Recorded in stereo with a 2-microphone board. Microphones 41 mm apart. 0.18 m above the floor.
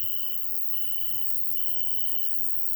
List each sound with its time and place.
0.0 s an insect: centre (ahead or behind), 1.2 m